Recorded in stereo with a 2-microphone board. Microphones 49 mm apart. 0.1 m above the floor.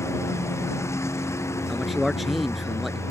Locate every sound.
0.0 s a lawn mower: 70° left (ahead or behind)
1.7 s a man speaking: 5° right (ahead or behind)